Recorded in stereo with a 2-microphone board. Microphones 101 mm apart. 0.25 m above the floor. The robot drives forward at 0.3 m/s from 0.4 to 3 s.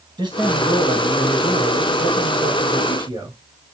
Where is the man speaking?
45° right (ahead or behind), 1.4 m.